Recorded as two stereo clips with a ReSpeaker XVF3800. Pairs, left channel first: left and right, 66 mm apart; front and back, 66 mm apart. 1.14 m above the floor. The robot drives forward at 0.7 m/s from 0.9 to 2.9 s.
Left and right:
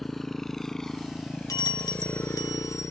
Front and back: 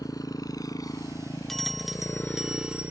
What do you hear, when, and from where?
0.0 s a motorcycle: 5° left; by 2.9 s 125° left
1.5 s a bell: 85° left; by 2.9 s 110° left